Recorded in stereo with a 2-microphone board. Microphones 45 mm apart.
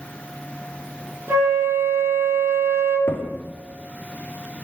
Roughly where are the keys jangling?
No keys jangling in this recording.